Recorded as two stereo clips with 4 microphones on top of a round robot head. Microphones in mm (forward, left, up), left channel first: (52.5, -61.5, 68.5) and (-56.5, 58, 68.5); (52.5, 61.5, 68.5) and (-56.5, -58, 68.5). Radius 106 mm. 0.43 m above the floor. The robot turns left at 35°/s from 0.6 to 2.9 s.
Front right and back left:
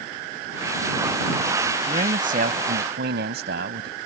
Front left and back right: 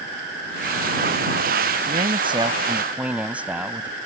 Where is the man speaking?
175° right; by 4.0 s 145° left.